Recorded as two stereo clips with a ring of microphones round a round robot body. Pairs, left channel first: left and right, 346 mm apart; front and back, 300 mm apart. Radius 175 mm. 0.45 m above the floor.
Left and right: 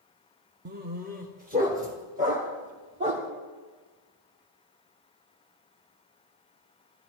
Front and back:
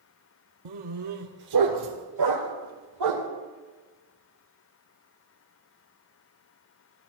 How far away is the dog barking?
About 0.9 m.